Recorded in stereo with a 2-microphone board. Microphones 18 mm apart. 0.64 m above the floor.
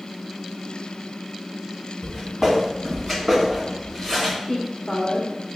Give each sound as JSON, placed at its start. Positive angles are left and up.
{"t": 2.0, "sound": "footsteps", "side_deg": -40, "distance_m": 1.9}
{"t": 4.5, "sound": "a woman speaking", "side_deg": 30, "distance_m": 0.6}